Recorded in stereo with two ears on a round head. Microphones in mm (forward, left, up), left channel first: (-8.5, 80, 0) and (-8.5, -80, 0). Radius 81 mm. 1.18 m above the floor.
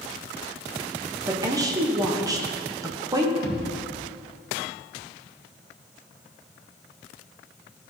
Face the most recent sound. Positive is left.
turn(degrees=50)  # may be behind; listen again after turning